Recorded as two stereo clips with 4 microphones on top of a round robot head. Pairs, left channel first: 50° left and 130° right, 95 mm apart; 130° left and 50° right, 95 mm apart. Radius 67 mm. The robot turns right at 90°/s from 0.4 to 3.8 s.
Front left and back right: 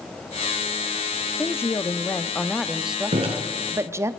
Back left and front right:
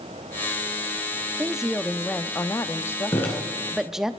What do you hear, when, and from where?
1.4 s a woman speaking: 15° left, 0.7 m; by 4.1 s 130° right, 0.7 m
3.1 s dripping: 170° right, 2.5 m; by 3.3 s 150° right, 2.5 m